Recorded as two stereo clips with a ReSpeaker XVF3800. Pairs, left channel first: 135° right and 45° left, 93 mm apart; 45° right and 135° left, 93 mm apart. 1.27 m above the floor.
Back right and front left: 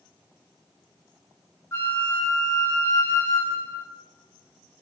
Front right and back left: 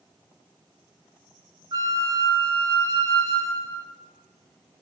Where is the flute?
170° left, 2.5 m.